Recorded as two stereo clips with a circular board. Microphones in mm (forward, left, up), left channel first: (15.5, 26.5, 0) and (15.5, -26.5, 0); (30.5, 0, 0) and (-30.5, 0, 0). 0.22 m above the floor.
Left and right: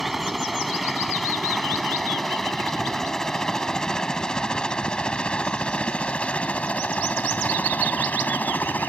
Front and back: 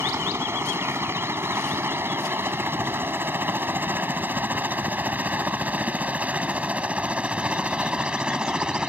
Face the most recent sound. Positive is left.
turn(degrees=110)